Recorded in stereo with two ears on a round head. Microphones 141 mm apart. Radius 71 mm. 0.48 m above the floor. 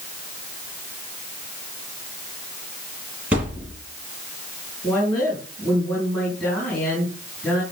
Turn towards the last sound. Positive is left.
turn(degrees=5)  # may be behind; listen again after turning